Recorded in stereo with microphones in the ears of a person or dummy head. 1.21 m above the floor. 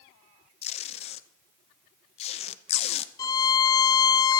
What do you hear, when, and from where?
0.6 s tape being pulled: 45° left (ahead or behind), 0.8 m
3.2 s a violin: 25° left (ahead or behind), 0.7 m